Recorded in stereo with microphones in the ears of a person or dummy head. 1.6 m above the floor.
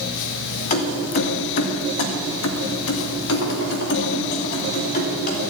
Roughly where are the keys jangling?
Left.